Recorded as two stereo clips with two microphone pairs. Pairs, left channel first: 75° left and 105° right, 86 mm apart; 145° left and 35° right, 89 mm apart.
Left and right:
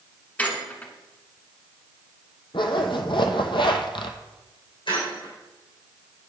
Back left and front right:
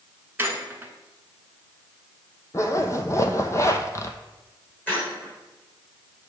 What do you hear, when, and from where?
0.4 s a squeak: 15° left, 0.9 m
2.5 s a zipper: 90° left, 0.7 m
4.9 s a squeak: 75° left, 3.5 m